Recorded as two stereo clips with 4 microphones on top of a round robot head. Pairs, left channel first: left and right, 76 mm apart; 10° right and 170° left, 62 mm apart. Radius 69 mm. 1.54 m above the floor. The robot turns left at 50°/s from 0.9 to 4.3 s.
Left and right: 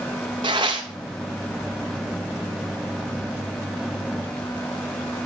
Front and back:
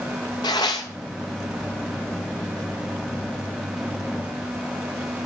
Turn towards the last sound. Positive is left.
turn(degrees=140)